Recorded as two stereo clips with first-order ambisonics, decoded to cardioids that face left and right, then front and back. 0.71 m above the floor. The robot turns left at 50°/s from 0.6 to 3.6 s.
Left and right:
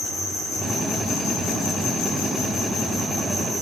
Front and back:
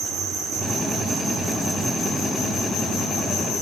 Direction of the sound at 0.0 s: 145° left.